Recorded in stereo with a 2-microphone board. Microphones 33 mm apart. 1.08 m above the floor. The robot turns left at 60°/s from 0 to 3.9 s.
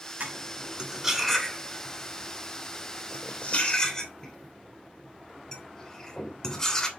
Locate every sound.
0.2 s cutlery clinking: 60° right (ahead or behind), 2.5 m; by 6.9 s 20° left (ahead or behind), 2.5 m